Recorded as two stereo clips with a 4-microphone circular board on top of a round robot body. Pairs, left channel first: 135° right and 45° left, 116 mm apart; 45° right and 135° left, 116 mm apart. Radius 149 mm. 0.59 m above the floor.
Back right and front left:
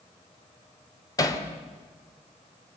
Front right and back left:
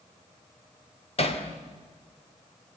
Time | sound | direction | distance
1.2 | hammering | 75° right | 2.5 m